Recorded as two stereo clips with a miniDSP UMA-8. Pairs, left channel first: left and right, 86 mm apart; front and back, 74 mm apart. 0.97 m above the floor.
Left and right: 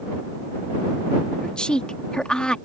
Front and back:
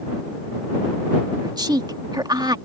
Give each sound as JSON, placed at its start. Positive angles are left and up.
{"t": 1.4, "sound": "a woman speaking", "azimuth_deg": 170}